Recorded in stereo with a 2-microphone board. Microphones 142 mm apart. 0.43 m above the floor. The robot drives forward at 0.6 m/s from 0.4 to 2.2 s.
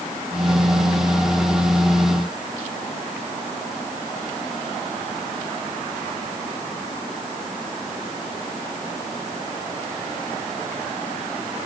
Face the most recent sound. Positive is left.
No sound to turn to.